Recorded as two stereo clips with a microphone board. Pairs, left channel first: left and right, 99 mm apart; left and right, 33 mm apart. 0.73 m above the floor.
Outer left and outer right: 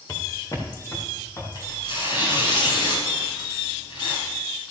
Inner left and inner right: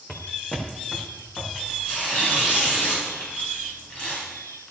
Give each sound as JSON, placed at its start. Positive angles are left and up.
{"t": 0.1, "sound": "footsteps", "side_deg": 30, "distance_m": 2.5}
{"t": 1.6, "sound": "tearing paper", "side_deg": 50, "distance_m": 4.5}